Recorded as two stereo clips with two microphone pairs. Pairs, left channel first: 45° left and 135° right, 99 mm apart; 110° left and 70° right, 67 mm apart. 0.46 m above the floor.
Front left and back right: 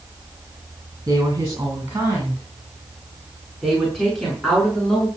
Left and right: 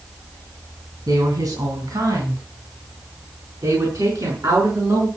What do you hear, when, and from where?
1.1 s a woman speaking: 80° right, 4.5 m; by 5.1 s 35° right, 6 m